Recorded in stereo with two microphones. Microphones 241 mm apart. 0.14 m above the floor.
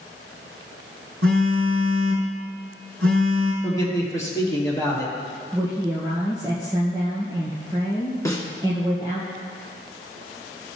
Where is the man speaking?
15° left (ahead or behind), 3 m.